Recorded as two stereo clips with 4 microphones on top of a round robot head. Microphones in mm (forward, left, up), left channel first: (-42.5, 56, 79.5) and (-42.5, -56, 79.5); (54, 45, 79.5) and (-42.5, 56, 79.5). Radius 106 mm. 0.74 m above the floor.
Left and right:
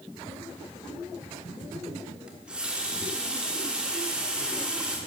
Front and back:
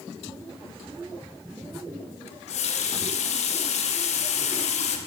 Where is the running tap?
5° right, 1.1 m.